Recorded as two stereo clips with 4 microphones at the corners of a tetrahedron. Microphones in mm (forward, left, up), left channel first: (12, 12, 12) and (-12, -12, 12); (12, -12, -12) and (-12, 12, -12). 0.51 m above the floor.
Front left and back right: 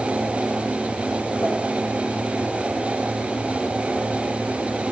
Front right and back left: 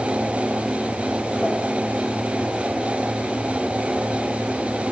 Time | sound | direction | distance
1.4 | a pop | 60° left | 8.5 m